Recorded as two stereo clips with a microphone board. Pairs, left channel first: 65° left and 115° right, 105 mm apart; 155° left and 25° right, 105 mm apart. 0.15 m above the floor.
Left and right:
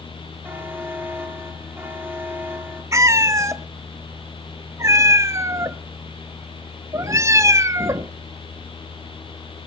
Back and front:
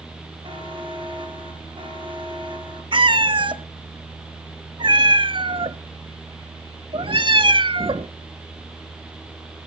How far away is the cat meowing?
About 0.6 m.